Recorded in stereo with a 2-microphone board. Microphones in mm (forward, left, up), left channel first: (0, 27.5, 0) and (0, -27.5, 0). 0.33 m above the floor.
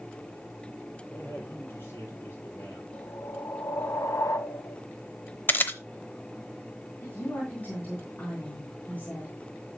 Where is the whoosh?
70° left (ahead or behind), 1.0 m.